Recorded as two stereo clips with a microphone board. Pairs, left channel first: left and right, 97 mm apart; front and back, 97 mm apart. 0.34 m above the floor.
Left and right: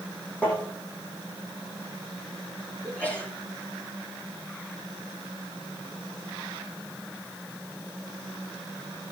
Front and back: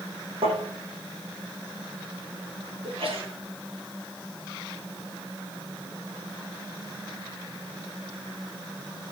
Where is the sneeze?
165° left, 7 m.